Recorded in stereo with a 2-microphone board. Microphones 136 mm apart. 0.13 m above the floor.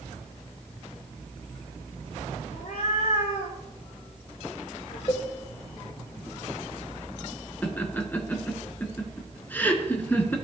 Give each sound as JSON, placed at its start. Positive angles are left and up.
{"t": 2.5, "sound": "a cat meowing", "side_deg": 60, "distance_m": 3.0}
{"t": 5.1, "sound": "a cowbell", "side_deg": 30, "distance_m": 1.4}
{"t": 7.6, "sound": "laughter", "side_deg": 15, "distance_m": 1.4}